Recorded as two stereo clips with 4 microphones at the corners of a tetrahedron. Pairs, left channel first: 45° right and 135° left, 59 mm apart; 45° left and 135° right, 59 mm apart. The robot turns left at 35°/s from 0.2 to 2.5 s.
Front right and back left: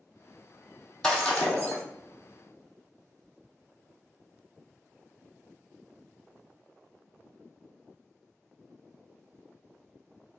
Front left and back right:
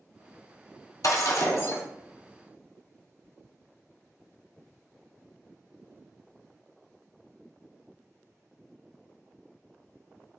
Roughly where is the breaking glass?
Ahead left.